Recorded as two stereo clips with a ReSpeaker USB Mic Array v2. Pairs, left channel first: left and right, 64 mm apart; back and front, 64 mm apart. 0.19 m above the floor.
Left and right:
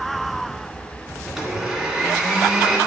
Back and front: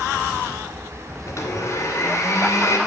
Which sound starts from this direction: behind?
A blender, at 1.3 s.